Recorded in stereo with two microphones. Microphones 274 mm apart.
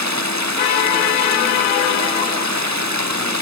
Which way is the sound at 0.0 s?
80° right.